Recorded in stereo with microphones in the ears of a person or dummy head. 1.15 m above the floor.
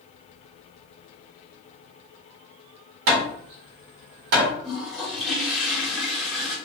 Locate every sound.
3.1 s hammering: 65° right (ahead or behind), 1.2 m
4.6 s a toilet flushing: centre (ahead or behind), 1.3 m